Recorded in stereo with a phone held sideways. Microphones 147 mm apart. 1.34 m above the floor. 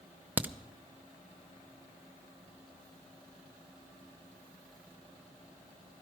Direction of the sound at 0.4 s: 10° right (ahead or behind).